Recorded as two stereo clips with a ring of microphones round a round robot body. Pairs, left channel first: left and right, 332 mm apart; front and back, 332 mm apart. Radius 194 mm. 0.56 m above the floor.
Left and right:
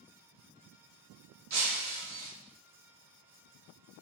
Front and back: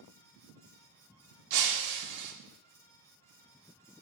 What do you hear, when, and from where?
1.5 s breaking glass: 140° right, 0.6 m